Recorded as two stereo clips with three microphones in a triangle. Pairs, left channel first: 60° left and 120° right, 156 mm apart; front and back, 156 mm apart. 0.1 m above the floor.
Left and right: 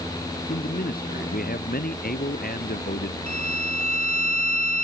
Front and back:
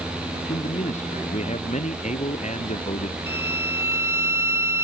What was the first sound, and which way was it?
A man speaking, 40° left.